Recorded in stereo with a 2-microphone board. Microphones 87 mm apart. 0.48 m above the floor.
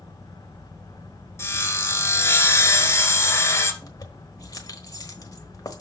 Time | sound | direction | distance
1.4 | sawing | 30° left (ahead or behind) | 1.5 m
3.8 | keys jangling | 45° left (ahead or behind) | 1.1 m